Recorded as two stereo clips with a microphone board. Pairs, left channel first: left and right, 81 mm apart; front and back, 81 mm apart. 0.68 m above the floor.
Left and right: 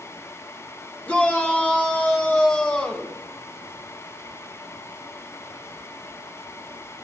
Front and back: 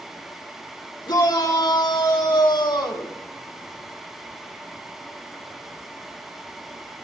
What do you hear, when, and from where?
1.1 s a shout: 15° left, 2 m; by 3.1 s 20° left, 4 m